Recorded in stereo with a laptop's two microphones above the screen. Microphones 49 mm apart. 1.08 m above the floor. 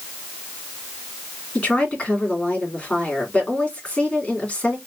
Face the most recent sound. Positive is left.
turn(degrees=20)  # may be behind; listen again after turning